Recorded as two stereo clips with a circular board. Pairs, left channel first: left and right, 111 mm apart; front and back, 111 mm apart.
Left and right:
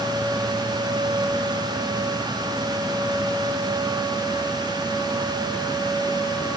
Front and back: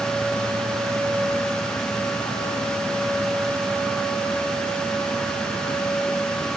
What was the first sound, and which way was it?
Only background noise.